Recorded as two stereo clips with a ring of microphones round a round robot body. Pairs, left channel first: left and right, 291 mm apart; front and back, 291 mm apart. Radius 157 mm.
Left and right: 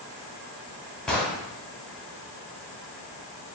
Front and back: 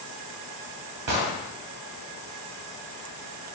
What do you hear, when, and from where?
1.1 s an explosion: straight behind, 2.5 m